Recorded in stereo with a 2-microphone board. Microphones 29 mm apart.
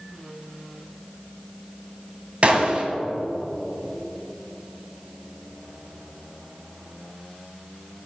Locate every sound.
2.4 s a gunshot: 45° right (ahead or behind), 1.2 m